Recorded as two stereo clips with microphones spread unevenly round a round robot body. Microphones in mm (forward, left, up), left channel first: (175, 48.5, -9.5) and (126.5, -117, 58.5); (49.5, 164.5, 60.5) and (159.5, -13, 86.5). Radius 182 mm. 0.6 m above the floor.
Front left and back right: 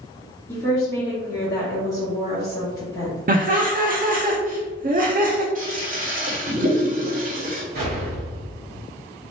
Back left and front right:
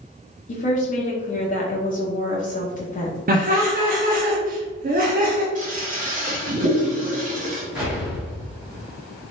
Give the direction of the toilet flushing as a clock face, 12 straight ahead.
2 o'clock.